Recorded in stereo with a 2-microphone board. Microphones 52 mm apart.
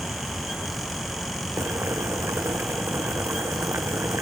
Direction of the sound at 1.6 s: 65° right (ahead or behind).